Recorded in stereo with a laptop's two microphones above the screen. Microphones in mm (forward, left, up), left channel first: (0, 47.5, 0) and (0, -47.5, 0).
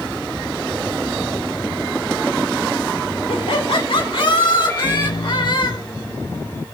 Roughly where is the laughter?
Left.